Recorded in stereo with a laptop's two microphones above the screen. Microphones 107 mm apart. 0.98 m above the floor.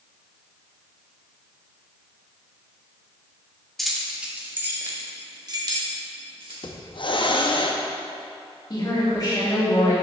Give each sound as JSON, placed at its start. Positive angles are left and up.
{"t": 3.8, "sound": "keys jangling", "side_deg": 5, "distance_m": 1.2}
{"t": 6.6, "sound": "a hiss", "side_deg": 50, "distance_m": 0.6}
{"t": 8.7, "sound": "a woman speaking", "side_deg": 40, "distance_m": 1.9}